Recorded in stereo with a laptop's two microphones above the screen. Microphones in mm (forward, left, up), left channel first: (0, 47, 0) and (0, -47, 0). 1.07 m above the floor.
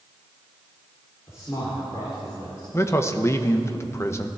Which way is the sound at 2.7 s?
30° left (ahead or behind).